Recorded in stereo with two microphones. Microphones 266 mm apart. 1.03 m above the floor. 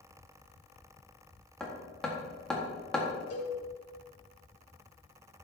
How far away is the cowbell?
About 3.5 m.